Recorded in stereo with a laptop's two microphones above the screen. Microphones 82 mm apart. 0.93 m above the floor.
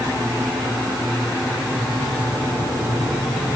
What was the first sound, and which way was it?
Only background noise.